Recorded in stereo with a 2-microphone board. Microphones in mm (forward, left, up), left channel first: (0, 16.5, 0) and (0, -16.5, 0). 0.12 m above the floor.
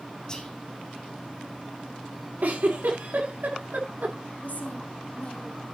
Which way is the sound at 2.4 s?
60° right (ahead or behind).